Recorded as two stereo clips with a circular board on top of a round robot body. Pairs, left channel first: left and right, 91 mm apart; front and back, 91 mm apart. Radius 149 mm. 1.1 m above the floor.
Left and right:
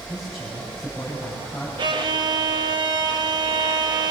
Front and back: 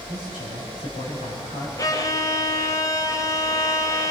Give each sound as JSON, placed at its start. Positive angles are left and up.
{"t": 0.1, "sound": "a man speaking", "azimuth_deg": 0, "distance_m": 7.5}
{"t": 1.8, "sound": "a violin", "azimuth_deg": -55, "distance_m": 1.4}